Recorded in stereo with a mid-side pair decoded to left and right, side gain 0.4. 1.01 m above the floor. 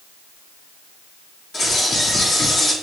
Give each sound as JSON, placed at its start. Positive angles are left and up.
{"t": 1.5, "sound": "a bird", "azimuth_deg": 50, "distance_m": 2.0}